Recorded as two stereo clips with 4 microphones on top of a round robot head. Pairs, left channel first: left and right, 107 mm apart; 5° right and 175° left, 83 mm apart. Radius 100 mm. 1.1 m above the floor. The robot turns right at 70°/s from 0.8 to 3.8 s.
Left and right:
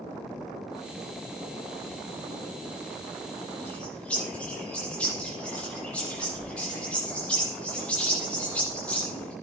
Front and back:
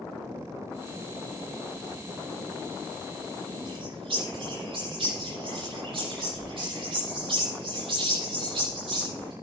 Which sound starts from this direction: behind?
A bird, at 3.6 s.